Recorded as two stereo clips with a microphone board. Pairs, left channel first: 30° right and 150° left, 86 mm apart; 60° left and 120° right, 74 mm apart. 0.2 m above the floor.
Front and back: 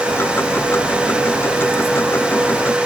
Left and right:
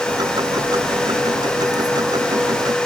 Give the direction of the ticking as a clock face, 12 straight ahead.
3 o'clock.